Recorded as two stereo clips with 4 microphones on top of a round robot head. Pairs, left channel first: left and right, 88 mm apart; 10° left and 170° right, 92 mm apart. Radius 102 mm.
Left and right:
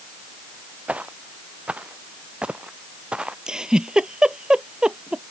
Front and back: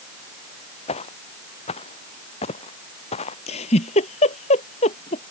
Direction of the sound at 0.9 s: 15° right.